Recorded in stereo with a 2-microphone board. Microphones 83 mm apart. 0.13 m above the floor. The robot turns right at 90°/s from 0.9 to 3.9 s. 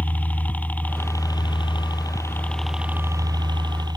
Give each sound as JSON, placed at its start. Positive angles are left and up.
{"t": 0.0, "sound": "a helicopter", "azimuth_deg": 20}